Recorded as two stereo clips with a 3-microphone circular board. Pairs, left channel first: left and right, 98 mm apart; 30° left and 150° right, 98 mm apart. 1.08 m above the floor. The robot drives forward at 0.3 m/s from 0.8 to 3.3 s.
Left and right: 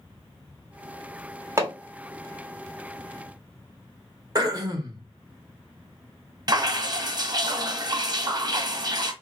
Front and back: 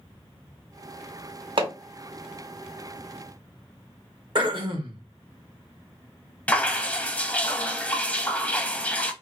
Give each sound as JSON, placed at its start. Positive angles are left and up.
{"t": 1.6, "sound": "hammering", "azimuth_deg": -150, "distance_m": 1.1}
{"t": 4.3, "sound": "throat clearing", "azimuth_deg": -130, "distance_m": 0.9}
{"t": 6.5, "sound": "dripping", "azimuth_deg": -45, "distance_m": 0.6}